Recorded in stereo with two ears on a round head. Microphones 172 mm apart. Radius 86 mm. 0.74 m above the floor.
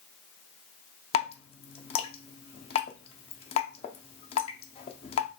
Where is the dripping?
30° left (ahead or behind), 0.5 m.